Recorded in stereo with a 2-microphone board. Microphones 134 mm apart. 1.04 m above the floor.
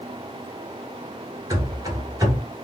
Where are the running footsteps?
25° right (ahead or behind), 1.1 m.